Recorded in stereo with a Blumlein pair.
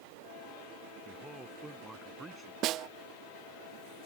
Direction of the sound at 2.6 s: 35° right.